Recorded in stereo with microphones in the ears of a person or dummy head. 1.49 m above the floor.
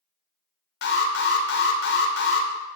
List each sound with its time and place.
0.8 s an alarm: 50° left (ahead or behind), 0.6 m